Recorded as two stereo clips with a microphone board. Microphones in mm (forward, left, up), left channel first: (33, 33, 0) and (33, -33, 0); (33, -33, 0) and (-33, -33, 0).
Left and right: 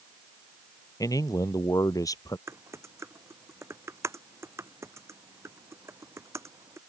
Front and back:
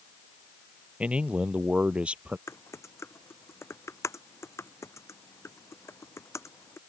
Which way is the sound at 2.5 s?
45° right.